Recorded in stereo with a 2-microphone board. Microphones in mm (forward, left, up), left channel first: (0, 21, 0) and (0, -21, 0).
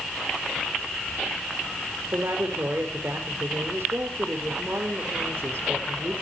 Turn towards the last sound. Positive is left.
turn(degrees=-70)  # may be behind; listen again after turning